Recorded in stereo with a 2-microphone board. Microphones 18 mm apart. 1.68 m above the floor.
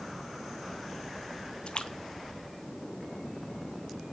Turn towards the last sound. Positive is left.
turn(degrees=60)  # may be behind; listen again after turning